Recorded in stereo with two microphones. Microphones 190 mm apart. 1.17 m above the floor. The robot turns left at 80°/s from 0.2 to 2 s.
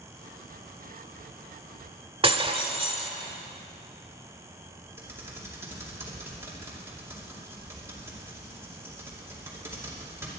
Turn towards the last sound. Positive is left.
turn(degrees=-15)  # may be behind; listen again after turning